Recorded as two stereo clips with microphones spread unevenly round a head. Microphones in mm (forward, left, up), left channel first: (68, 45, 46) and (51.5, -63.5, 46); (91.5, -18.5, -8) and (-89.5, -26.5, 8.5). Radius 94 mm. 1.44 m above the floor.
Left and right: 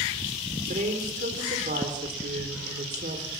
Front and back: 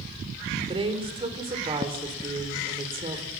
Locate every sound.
0.7 s a woman speaking: 115° right, 4 m